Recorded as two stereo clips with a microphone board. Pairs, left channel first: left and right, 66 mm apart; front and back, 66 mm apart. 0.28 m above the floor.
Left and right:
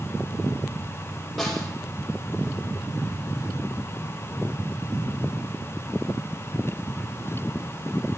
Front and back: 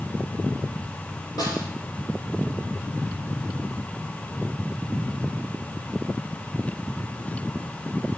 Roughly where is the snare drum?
Ahead.